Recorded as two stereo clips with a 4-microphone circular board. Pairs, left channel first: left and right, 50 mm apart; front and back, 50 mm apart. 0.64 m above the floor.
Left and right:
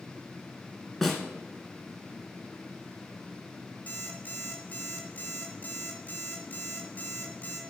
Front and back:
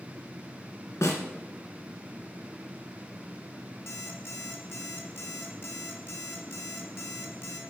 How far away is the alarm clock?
About 2 m.